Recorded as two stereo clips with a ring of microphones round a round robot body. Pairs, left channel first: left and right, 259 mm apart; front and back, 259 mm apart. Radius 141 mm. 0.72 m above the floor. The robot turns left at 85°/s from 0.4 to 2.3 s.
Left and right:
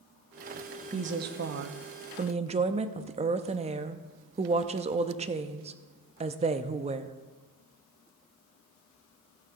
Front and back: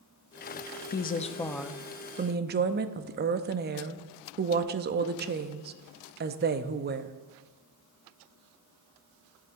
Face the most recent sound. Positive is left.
turn(degrees=-145)